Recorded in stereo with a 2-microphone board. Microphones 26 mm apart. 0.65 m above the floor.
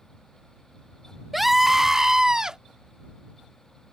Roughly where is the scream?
Centre.